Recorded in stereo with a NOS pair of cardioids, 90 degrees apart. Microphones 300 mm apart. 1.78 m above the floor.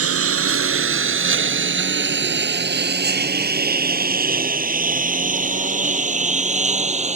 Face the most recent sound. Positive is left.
turn(degrees=-20)